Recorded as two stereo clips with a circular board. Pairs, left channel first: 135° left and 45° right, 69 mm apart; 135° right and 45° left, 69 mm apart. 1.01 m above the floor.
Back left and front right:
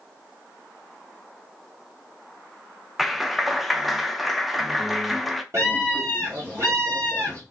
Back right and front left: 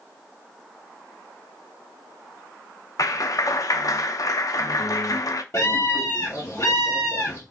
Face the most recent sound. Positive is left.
turn(degrees=-90)